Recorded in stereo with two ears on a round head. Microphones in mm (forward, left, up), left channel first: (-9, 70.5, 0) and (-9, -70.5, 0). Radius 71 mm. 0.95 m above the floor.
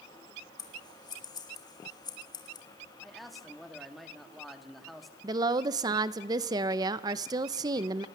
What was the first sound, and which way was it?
Scissors, 25° left (ahead or behind).